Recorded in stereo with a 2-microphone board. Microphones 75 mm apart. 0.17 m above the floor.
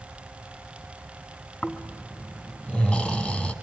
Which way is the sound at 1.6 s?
10° left (ahead or behind).